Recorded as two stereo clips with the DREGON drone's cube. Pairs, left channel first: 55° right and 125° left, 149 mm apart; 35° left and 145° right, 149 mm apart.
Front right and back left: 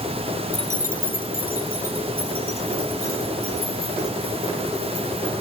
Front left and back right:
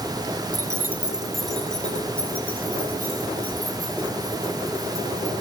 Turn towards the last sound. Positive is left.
turn(degrees=-40)